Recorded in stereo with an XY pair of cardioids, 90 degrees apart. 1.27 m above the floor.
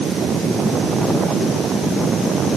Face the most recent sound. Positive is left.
No sound to turn to.